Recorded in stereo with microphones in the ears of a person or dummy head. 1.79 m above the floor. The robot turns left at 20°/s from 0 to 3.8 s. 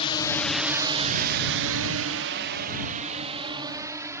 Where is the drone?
30° left (ahead or behind); by 4.2 s 10° right (ahead or behind).